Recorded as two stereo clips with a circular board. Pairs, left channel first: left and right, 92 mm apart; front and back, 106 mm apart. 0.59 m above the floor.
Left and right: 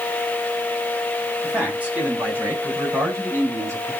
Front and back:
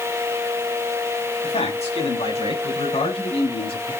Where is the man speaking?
15° right, 5 m; by 3.9 s 30° right, 6.5 m.